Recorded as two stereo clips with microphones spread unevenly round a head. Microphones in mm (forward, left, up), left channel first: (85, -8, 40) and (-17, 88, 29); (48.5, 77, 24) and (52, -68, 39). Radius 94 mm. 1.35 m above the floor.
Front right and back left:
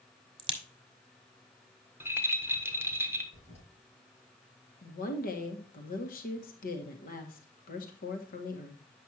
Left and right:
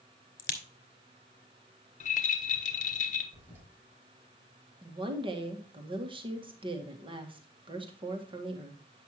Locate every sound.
0.4 s a crack: 85° left, 1.9 m
2.0 s a rattle: 65° left, 1.3 m
3.3 s a toilet flushing: 15° right, 4 m
4.8 s a woman speaking: 35° right, 1.8 m